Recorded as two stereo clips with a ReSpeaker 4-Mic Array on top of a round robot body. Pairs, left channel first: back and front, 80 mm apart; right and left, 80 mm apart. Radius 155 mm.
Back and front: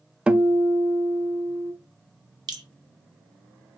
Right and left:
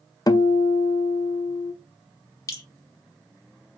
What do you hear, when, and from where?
0.3 s a guitar: 75° right, 0.5 m
2.5 s dripping: 35° right, 0.6 m